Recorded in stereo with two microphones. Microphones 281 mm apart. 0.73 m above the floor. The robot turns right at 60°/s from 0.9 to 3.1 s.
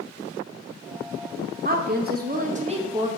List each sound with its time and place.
1.6 s a woman speaking: 105° right, 1.0 m; by 3.1 s 20° right, 1.0 m